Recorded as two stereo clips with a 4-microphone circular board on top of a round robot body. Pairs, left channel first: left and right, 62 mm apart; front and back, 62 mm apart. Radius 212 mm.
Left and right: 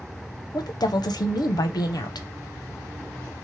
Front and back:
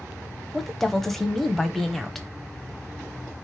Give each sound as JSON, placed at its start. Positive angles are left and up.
{"t": 0.5, "sound": "a woman speaking", "azimuth_deg": 85, "distance_m": 0.7}